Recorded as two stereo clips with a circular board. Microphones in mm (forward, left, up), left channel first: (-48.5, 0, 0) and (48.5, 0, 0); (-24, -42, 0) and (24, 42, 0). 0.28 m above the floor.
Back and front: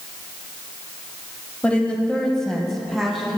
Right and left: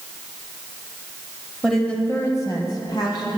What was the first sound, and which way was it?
A woman speaking, 140° left.